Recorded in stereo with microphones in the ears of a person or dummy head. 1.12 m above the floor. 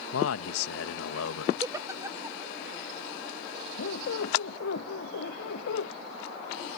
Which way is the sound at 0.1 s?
85° left.